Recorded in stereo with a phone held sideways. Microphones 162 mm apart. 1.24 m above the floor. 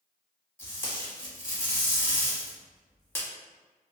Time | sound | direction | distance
0.6 | tape being pulled | 15° left (ahead or behind) | 0.9 m